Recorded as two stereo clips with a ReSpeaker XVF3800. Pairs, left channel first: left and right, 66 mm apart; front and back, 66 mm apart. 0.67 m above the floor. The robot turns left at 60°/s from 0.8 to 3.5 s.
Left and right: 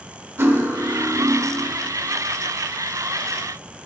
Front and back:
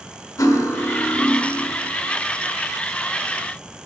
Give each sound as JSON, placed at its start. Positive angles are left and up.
{"t": 0.4, "sound": "cutlery clinking", "azimuth_deg": -35, "distance_m": 1.0}